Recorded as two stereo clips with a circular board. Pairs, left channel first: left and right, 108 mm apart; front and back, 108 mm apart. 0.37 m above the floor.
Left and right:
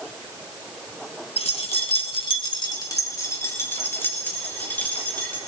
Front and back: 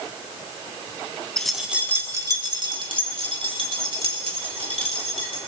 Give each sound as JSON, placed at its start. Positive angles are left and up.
{"t": 1.4, "sound": "keys jangling", "azimuth_deg": 85, "distance_m": 1.8}